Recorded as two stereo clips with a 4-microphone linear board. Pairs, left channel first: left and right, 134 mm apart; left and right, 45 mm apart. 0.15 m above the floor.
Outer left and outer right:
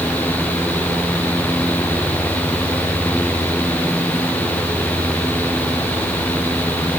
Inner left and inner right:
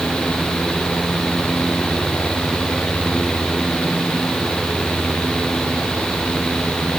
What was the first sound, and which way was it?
Only background noise.